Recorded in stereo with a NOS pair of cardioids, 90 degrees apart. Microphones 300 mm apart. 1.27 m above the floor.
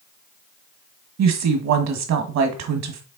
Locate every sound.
1.2 s a woman speaking: 65° right, 1.6 m